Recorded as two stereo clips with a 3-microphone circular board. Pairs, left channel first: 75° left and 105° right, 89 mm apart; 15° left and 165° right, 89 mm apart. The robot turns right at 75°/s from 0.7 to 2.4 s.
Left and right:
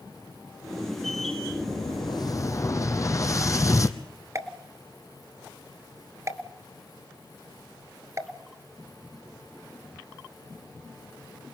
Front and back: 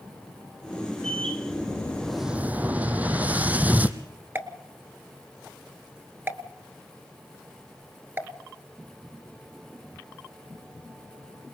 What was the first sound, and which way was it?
An explosion, 55° left.